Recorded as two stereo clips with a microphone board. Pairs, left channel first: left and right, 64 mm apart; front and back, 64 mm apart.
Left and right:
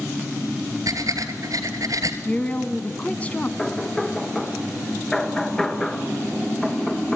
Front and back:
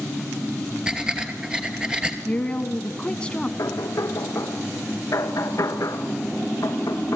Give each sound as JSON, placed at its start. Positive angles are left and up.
{"t": 0.9, "sound": "breathing", "azimuth_deg": -105, "distance_m": 2.5}
{"t": 2.2, "sound": "a woman speaking", "azimuth_deg": 55, "distance_m": 1.2}
{"t": 3.6, "sound": "knocking", "azimuth_deg": 10, "distance_m": 1.7}